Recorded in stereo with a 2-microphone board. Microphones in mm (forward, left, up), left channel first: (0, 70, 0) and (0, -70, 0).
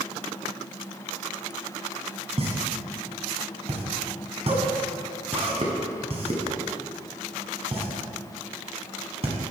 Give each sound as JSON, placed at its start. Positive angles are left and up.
{"t": 2.4, "sound": "a pop", "side_deg": -45, "distance_m": 1.4}